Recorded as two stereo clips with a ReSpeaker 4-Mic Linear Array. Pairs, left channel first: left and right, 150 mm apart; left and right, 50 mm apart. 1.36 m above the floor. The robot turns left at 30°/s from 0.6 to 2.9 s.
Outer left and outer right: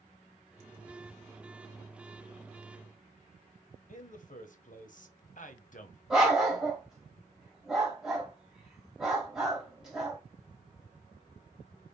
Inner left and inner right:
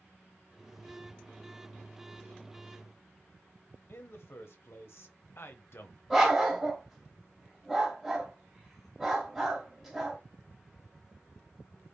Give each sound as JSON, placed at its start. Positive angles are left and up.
{"t": 3.9, "sound": "a man speaking", "side_deg": 60, "distance_m": 1.0}
{"t": 6.1, "sound": "a dog barking", "side_deg": -5, "distance_m": 2.0}